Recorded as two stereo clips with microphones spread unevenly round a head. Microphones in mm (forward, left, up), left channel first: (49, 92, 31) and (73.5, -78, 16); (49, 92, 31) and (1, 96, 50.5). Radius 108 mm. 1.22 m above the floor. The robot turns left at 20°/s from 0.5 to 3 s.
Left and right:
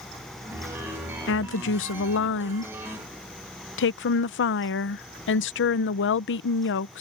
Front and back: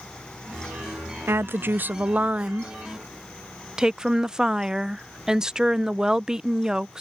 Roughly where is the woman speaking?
Behind left.